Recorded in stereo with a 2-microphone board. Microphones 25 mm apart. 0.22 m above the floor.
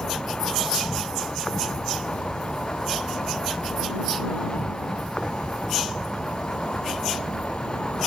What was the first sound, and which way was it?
An insect, 45° left (ahead or behind).